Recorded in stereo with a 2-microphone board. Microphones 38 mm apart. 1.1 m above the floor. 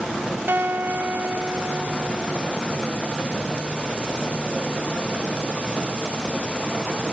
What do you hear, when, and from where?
0.5 s a guitar: 65° right (ahead or behind), 1.3 m